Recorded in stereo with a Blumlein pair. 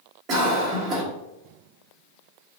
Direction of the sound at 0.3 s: 30° right.